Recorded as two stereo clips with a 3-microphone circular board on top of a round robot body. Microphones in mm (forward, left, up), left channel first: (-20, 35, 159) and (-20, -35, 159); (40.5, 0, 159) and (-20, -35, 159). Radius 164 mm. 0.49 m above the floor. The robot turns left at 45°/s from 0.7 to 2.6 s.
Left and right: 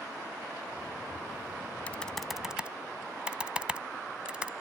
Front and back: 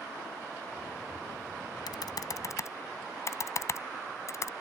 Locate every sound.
1.9 s typing on a keyboard: 20° left; by 4.5 s 15° right